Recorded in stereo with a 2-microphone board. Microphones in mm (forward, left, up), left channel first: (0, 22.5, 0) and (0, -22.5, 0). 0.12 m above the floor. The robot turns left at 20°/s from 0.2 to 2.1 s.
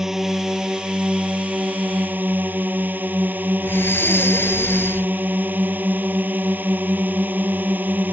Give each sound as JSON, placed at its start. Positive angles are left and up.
{"t": 0.0, "sound": "a drone", "azimuth_deg": -10}
{"t": 3.6, "sound": "breathing", "side_deg": 60}